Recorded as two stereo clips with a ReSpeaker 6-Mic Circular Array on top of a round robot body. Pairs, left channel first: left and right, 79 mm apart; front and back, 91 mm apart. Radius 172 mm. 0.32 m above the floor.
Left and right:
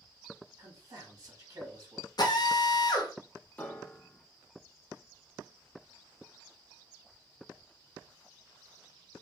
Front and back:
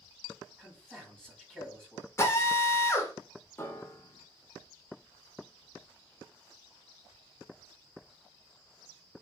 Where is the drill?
60° left, 0.7 m.